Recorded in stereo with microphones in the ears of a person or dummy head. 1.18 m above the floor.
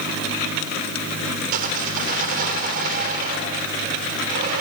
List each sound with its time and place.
1.5 s sawing: 50° right (ahead or behind), 3 m